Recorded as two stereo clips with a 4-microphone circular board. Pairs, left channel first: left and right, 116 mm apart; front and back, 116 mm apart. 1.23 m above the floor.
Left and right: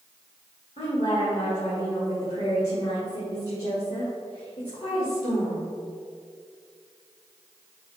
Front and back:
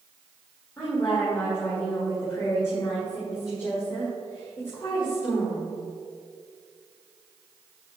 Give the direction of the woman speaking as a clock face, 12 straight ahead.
10 o'clock.